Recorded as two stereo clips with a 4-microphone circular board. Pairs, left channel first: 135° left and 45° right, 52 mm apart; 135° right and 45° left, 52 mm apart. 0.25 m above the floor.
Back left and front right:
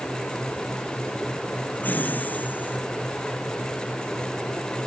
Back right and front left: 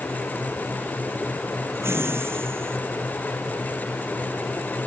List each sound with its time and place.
1.8 s laughter: 80° left; by 2.8 s 85° left